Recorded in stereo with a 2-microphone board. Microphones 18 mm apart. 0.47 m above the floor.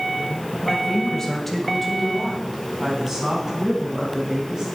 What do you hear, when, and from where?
0.6 s a woman speaking: 45° left (ahead or behind), 2 m; by 4.8 s 30° right (ahead or behind), 6.5 m